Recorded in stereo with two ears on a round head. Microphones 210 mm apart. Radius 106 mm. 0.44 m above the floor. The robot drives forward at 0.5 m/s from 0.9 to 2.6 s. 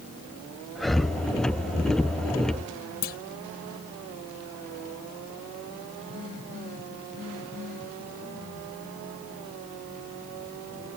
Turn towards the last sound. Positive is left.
turn(degrees=55)  # may be behind; listen again after turning